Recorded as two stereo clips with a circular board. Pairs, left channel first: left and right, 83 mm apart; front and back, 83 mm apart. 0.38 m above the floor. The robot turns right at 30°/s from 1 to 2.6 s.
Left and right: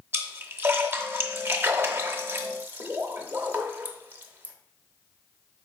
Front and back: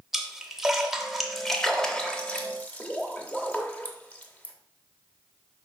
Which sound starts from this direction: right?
A splash, at 0.1 s.